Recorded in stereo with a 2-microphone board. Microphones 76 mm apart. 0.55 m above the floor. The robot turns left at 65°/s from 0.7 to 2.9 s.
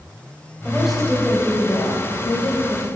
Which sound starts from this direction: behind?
A woman speaking, at 0.7 s.